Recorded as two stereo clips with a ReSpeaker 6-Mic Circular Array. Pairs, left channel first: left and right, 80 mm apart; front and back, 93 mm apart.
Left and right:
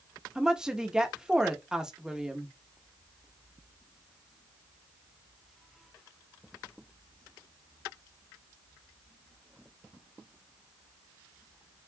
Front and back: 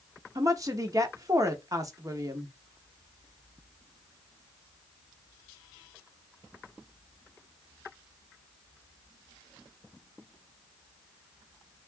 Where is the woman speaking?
165° right, 1.0 m.